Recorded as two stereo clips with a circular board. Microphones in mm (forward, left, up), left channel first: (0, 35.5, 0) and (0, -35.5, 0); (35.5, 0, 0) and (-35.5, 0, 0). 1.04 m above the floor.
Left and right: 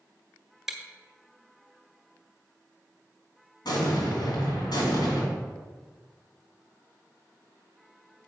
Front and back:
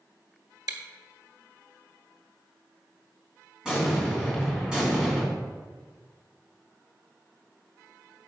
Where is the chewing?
175° right, 1.3 m.